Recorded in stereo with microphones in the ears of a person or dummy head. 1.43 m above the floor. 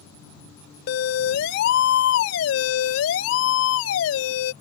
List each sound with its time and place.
0.9 s a siren: 60° left (ahead or behind); by 4.5 s 75° left (ahead or behind)